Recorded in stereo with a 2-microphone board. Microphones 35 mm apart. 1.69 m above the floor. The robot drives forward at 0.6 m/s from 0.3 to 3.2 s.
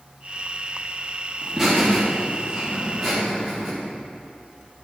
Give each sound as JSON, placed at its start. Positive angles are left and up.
{"t": 1.4, "sound": "laughter", "side_deg": -5, "distance_m": 2.5}